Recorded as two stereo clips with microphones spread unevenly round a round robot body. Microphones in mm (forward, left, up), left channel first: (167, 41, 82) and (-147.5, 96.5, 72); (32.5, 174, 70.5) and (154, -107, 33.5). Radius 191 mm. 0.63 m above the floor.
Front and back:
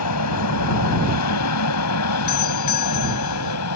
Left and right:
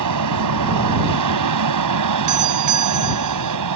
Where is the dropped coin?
I don't hear a dropped coin.